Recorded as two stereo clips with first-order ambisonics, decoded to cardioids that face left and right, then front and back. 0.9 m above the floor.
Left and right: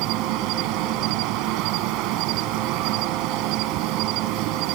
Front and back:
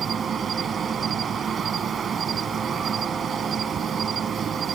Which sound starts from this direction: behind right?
An insect, at 0.0 s.